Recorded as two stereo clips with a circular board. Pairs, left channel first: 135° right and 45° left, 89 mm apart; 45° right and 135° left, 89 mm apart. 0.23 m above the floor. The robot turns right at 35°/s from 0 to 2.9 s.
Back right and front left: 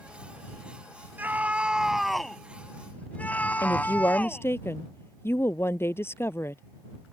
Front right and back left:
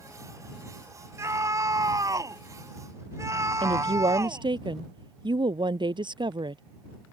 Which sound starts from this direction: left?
A scream, at 1.2 s.